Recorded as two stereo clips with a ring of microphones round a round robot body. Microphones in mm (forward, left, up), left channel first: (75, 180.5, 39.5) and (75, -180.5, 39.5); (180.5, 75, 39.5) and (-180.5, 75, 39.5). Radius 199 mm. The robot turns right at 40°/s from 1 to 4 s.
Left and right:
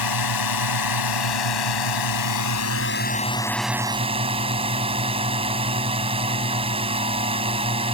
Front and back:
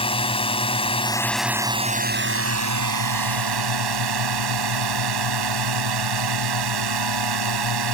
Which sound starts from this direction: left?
A drone, at 0.0 s.